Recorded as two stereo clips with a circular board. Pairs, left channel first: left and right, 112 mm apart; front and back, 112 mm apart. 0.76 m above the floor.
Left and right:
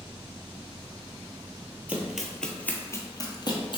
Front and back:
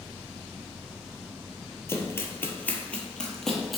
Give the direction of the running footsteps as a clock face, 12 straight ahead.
1 o'clock.